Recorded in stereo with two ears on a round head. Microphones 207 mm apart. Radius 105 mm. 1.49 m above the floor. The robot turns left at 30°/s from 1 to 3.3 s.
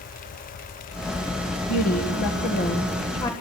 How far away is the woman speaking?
About 1.5 m.